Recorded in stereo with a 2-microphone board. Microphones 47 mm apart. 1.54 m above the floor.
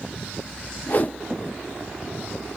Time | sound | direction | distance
0.9 | a whoosh | 40° left (ahead or behind) | 0.5 m